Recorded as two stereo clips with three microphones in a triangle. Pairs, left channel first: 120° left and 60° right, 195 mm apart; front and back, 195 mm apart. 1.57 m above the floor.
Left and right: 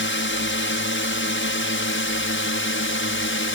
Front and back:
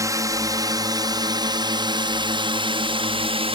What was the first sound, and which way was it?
A drone, 105° left.